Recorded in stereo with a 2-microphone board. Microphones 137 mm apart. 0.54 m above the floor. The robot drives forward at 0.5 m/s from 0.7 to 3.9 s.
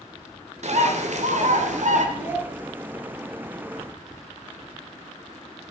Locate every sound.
0.6 s a bird: 60° right (ahead or behind), 1.8 m; by 2.0 s 65° right (ahead or behind), 1.7 m
2.1 s a child speaking: 60° right (ahead or behind), 6.5 m